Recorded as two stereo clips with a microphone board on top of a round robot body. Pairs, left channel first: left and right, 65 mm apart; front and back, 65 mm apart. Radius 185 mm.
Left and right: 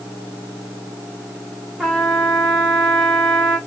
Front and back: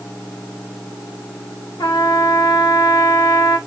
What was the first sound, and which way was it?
A trumpet, 5° left.